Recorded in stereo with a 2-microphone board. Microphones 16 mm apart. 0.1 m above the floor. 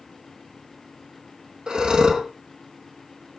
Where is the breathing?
65° right (ahead or behind), 2.5 m.